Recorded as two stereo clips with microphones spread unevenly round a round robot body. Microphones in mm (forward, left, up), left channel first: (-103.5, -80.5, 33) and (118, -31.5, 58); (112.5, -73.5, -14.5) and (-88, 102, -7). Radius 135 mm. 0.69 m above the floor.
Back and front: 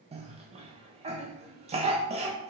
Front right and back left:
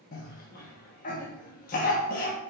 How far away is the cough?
About 0.6 m.